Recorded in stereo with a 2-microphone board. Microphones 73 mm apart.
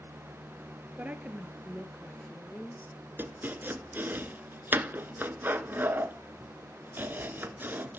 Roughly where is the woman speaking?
Right.